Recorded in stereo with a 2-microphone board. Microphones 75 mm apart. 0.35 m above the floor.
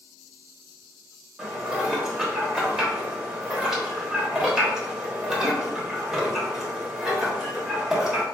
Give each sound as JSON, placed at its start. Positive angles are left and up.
{"t": 1.4, "sound": "dishes clattering", "side_deg": -10, "distance_m": 0.7}